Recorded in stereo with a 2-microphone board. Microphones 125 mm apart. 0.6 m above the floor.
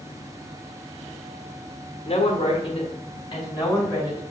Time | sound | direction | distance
2.0 | a woman speaking | 60° left (ahead or behind) | 1.3 m